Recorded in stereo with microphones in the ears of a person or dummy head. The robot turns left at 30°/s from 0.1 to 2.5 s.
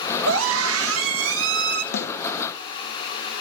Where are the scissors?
No scissors in this recording.